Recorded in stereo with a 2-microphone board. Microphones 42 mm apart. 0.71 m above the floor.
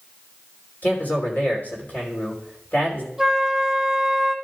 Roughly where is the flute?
Centre.